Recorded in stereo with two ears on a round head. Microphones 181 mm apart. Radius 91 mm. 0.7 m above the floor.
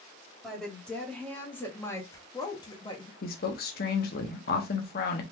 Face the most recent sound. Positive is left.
turn(degrees=50)  # may be behind; listen again after turning